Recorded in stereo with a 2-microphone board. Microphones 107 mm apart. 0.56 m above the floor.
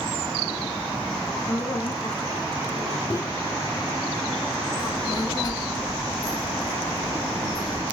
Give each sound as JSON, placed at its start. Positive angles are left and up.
{"t": 1.5, "sound": "a woman speaking", "side_deg": 40, "distance_m": 1.5}
{"t": 3.1, "sound": "a microwave", "side_deg": 30, "distance_m": 0.7}
{"t": 4.8, "sound": "a child speaking", "side_deg": 40, "distance_m": 0.8}